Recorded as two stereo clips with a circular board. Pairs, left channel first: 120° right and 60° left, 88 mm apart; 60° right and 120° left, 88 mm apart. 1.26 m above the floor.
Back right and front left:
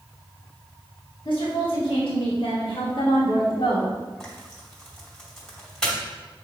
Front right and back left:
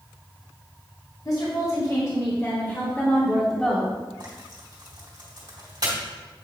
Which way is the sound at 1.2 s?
100° right.